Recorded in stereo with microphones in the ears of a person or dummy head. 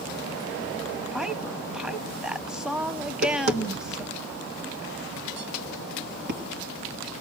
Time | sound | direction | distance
1.1 | a woman speaking | 5° right (ahead or behind) | 0.8 m
3.0 | tapping | 55° right (ahead or behind) | 1.8 m